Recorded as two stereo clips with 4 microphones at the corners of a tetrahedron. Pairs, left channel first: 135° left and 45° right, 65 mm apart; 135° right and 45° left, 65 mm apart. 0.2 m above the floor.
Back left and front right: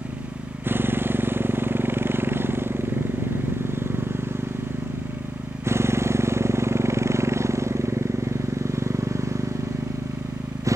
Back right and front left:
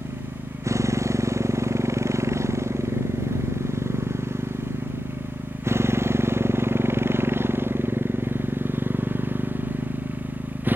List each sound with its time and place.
0.0 s a motorcycle: 10° left; by 10.8 s 15° right